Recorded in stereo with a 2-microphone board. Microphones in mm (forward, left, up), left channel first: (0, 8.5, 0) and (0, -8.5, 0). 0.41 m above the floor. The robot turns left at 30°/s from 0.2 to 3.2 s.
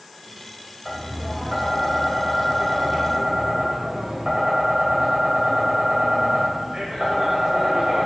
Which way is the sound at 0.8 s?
Straight ahead.